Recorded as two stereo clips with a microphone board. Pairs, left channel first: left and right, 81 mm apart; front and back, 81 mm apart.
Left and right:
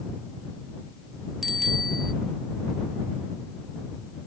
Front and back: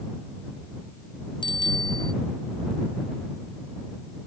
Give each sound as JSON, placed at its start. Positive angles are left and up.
{"t": 1.4, "sound": "a bicycle bell", "azimuth_deg": -5}